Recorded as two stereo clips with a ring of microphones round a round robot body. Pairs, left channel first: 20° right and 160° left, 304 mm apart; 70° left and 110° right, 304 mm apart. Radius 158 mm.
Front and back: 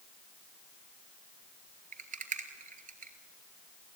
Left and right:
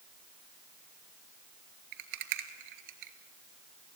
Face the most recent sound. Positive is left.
turn(degrees=-135)